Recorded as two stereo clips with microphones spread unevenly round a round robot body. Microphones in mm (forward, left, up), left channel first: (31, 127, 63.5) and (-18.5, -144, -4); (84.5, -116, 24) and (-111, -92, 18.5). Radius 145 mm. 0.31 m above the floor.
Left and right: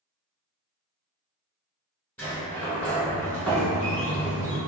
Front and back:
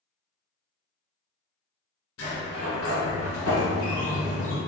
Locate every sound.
2.2 s a sliding door: 5° right, 1.1 m